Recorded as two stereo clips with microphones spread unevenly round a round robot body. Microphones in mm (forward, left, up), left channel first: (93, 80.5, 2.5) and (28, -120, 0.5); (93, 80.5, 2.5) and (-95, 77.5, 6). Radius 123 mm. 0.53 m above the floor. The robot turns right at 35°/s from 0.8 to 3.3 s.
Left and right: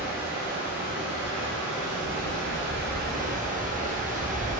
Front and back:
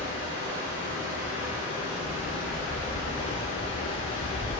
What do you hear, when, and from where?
0.0 s running water: 150° right, 0.8 m; by 4.6 s 60° right, 0.8 m